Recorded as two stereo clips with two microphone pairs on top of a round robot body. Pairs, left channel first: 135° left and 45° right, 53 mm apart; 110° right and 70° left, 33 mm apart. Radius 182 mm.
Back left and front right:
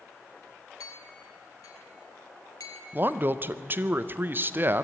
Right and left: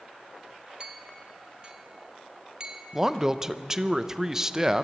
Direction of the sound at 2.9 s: 5° right.